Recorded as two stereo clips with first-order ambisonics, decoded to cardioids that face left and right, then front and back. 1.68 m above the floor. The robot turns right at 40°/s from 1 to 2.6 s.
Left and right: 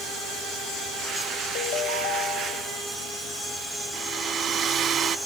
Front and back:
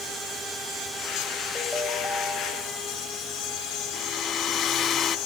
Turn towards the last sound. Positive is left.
turn(degrees=-45)